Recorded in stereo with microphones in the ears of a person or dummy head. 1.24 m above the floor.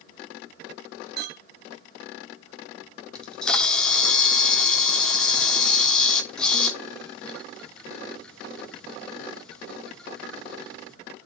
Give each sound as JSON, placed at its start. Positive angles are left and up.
{"t": 1.2, "sound": "a clink", "side_deg": -55, "distance_m": 0.6}
{"t": 3.1, "sound": "a camera shutter", "side_deg": 5, "distance_m": 1.3}